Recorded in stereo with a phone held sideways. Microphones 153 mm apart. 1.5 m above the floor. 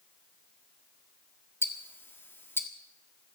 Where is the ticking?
15° left (ahead or behind), 1.4 m.